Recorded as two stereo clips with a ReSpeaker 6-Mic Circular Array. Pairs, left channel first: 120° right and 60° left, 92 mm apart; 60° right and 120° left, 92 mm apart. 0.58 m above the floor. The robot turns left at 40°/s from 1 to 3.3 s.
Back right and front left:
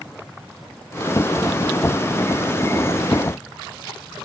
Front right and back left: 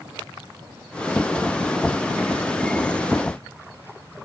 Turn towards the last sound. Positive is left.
No sound to turn to.